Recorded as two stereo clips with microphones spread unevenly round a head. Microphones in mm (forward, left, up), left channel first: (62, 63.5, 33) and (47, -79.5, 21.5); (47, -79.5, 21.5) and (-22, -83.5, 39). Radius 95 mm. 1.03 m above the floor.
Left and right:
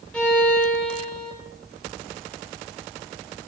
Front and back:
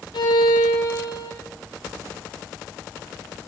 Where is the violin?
Straight ahead, 4 m.